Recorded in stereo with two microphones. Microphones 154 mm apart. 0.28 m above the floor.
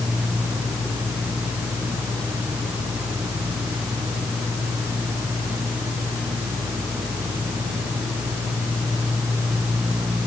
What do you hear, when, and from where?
Only background noise.